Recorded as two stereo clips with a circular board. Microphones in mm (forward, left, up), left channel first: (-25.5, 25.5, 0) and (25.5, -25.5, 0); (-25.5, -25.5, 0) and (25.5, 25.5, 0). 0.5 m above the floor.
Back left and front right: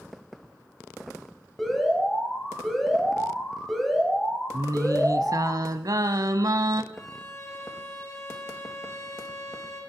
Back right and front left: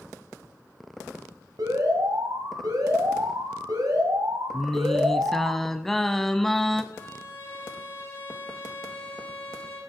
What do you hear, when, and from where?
1.6 s an alarm: 50° left, 2.5 m
4.5 s singing: 50° right, 0.6 m
6.9 s a violin: straight behind, 4.5 m